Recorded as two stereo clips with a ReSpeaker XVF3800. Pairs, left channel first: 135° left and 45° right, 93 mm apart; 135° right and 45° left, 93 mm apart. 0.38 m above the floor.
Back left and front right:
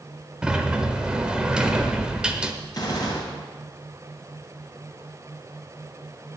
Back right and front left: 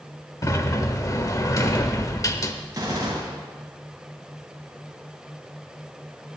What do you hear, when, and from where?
0.4 s a sliding door: 120° right, 0.9 m
2.7 s a gunshot: 95° left, 3.5 m